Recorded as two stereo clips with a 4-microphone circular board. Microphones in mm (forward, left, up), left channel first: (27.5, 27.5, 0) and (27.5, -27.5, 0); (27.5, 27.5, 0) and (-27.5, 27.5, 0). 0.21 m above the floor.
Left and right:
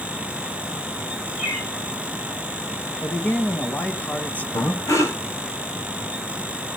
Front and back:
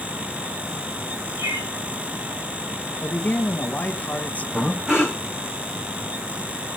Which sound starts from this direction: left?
Breathing, at 4.5 s.